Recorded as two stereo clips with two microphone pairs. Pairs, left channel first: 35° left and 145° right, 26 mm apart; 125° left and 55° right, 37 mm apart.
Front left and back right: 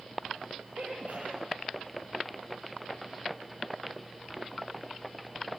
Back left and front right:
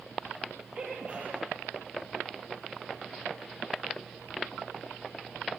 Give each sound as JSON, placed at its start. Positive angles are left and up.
{"t": 0.8, "sound": "a sneeze", "azimuth_deg": -115, "distance_m": 6.5}